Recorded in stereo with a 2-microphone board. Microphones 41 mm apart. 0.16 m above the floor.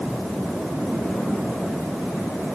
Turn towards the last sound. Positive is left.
No sound to turn to.